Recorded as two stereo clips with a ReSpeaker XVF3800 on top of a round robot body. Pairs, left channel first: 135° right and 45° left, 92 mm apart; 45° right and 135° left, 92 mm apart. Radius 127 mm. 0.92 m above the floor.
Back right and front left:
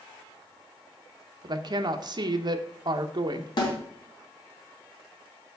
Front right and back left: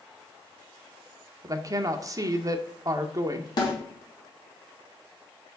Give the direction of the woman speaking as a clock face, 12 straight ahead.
9 o'clock.